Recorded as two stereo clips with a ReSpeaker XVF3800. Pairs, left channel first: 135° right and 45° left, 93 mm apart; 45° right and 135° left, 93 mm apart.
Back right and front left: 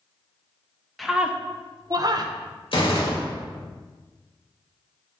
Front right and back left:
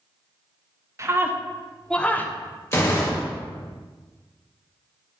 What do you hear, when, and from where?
1.0 s a scream: 135° left, 0.6 m; by 2.3 s 20° left, 0.9 m
2.7 s a gunshot: 105° right, 2.0 m